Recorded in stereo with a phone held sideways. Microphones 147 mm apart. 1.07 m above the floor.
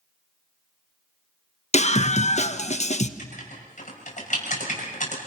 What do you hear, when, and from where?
1.7 s a scream: 50° left (ahead or behind), 1.3 m
3.2 s writing: 55° left (ahead or behind), 6.5 m